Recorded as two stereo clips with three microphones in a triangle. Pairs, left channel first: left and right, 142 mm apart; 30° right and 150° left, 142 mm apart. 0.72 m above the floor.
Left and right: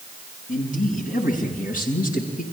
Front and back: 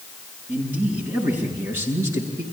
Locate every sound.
0.5 s a man speaking: 75° left, 7.5 m; by 2.4 s 85° left, 8 m